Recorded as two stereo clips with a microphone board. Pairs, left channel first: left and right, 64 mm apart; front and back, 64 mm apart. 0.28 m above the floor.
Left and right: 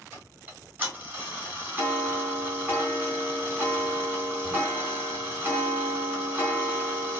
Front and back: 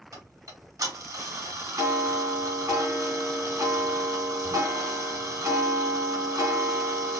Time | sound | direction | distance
0.1 | ticking | 150° right | 3 m